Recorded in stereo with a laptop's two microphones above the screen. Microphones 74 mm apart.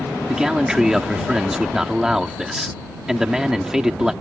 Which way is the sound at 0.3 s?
5° right (ahead or behind).